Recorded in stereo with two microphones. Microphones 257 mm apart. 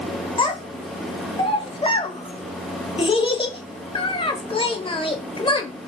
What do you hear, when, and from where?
0.4 s a child speaking: 20° left (ahead or behind), 0.5 m